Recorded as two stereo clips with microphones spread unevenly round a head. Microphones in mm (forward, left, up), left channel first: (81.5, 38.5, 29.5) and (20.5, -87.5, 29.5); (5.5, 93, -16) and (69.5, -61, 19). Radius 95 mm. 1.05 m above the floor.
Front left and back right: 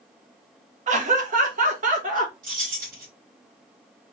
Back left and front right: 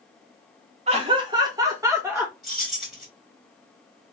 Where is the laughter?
130° right, 1.1 m; by 2.3 s 150° right, 1.9 m.